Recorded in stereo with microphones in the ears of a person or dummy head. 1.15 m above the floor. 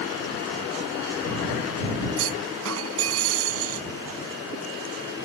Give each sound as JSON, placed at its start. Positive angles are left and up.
{"t": 2.2, "sound": "a clunk", "side_deg": -80}